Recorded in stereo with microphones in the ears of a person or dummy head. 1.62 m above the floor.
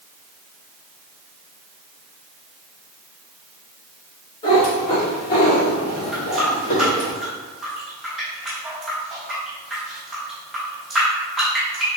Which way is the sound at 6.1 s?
5° right (ahead or behind).